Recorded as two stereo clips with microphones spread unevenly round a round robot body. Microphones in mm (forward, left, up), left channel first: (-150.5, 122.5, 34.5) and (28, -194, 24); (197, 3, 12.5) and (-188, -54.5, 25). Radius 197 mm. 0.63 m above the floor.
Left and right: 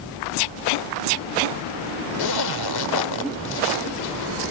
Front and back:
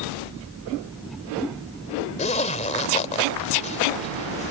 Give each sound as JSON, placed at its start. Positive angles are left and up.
{"t": 2.2, "sound": "a zipper", "azimuth_deg": 85}